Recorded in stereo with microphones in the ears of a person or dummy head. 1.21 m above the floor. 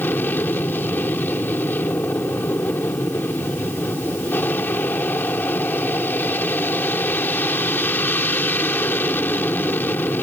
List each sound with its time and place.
0.0 s an aircraft: 5° left (ahead or behind)